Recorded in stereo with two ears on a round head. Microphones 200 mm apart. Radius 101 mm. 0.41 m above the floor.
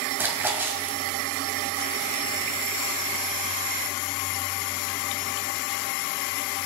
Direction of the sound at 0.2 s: 10° right (ahead or behind).